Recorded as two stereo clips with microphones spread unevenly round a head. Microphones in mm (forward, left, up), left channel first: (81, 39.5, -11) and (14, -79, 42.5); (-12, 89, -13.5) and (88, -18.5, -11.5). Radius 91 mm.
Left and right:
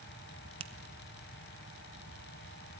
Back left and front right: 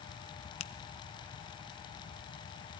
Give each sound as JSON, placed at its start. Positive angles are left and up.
{"t": 0.6, "sound": "a finger snap", "azimuth_deg": -170, "distance_m": 0.8}